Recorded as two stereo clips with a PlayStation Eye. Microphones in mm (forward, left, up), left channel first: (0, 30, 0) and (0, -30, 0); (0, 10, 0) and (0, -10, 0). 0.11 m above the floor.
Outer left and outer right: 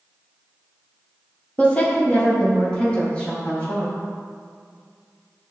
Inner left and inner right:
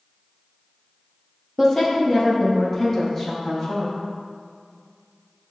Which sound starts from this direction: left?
A woman speaking, at 1.6 s.